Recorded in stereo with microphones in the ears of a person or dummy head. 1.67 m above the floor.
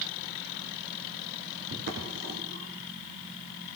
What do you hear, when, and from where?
1.7 s footsteps: 60° right (ahead or behind), 6.5 m; by 3.8 s 40° right (ahead or behind), 6 m